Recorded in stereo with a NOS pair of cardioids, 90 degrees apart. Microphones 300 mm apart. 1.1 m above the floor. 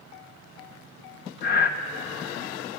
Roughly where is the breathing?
Ahead left.